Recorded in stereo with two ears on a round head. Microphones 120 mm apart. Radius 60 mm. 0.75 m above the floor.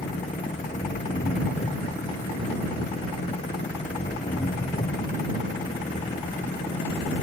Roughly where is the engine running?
Left.